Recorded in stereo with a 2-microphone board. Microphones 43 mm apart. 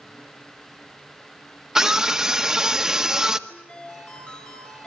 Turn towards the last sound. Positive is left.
turn(degrees=30)  # may be behind; listen again after turning